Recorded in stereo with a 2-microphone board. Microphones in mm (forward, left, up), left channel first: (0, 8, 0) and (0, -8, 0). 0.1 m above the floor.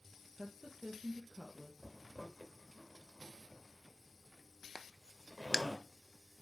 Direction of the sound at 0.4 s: 40° right (ahead or behind).